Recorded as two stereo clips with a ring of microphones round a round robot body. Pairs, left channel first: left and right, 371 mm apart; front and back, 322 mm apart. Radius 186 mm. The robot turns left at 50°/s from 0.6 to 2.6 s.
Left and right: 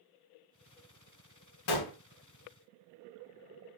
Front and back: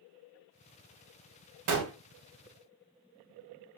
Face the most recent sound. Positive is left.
turn(degrees=95)